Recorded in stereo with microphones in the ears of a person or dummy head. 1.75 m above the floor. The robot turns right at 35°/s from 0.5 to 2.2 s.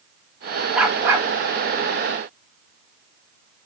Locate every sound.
0.8 s a dog barking: centre (ahead or behind), 1.9 m; by 1.3 s 15° right (ahead or behind), 1.9 m